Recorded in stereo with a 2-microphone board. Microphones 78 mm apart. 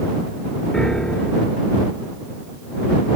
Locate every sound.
0.7 s a piano: 10° left (ahead or behind)